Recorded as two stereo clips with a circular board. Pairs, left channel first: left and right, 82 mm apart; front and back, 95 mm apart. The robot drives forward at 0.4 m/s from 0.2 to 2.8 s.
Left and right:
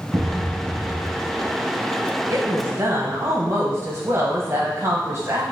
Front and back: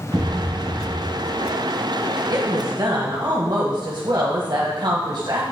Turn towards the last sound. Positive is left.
turn(degrees=-145)